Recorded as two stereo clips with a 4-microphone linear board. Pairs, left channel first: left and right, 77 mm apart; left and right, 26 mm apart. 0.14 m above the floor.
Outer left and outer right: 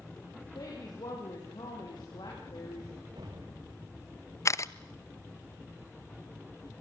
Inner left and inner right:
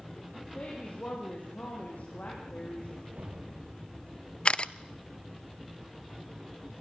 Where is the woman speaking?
70° left (ahead or behind), 7 m.